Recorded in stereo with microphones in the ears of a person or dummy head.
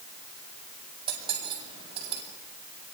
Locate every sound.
1.1 s cutlery clinking: 25° right (ahead or behind), 6.5 m